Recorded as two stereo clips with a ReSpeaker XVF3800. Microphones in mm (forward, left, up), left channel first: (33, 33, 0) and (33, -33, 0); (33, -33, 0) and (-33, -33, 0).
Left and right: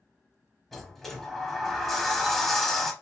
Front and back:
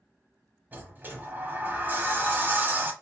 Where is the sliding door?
170° left, 0.7 m.